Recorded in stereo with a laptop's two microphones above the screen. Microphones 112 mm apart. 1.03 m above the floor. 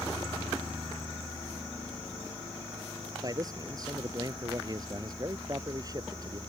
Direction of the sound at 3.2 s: 35° right (ahead or behind).